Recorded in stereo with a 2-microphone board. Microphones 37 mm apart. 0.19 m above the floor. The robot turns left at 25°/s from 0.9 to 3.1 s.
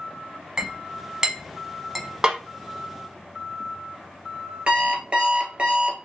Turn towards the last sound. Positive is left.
turn(degrees=-30)  # may be behind; listen again after turning